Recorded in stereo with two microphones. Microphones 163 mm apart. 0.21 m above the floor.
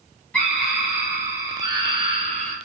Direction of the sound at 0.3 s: 5° left (ahead or behind).